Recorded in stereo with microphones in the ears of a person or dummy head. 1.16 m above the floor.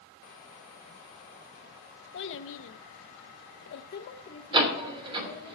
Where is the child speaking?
60° left (ahead or behind), 0.9 m; by 5.5 s 15° left (ahead or behind), 1.3 m.